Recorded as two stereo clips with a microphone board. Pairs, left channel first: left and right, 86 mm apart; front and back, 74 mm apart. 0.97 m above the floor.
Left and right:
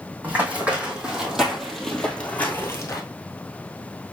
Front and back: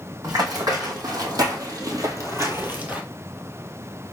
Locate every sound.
0.2 s running footsteps: 160° right, 2.5 m; by 3.0 s 120° left, 1.3 m